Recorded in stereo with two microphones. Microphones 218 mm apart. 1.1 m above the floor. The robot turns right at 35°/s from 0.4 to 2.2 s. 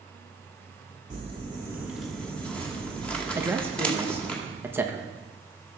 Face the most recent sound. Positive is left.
turn(degrees=-10)  # may be behind; listen again after turning